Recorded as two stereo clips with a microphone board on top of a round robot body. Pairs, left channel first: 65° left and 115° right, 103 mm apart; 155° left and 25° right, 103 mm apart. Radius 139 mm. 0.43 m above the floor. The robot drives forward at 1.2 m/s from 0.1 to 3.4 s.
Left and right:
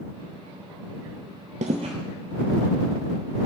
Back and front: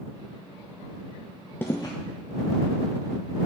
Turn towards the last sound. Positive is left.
turn(degrees=-170)